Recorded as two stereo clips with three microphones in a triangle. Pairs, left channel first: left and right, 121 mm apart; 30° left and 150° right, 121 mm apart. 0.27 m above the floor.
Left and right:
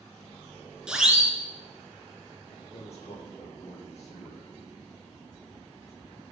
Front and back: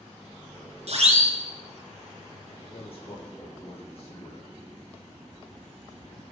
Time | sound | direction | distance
0.9 | a siren | 175° right | 3.5 m
2.5 | a man speaking | 65° left | 7 m